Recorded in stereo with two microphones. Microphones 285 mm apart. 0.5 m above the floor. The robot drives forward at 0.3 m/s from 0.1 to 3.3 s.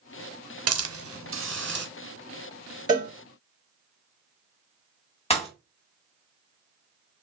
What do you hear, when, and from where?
0.7 s a hiss: 60° right (ahead or behind), 0.5 m; by 1.9 s 40° right (ahead or behind), 0.7 m
2.9 s a cowbell: 15° right (ahead or behind), 2 m
5.3 s a pop: 20° left (ahead or behind), 1.2 m